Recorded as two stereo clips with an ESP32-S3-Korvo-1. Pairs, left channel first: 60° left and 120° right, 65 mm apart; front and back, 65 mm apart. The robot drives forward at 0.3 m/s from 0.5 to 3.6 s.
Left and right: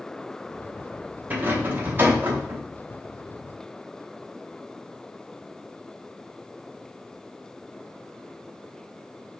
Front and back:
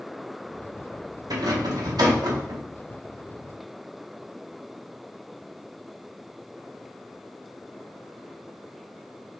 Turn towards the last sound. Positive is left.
turn(degrees=180)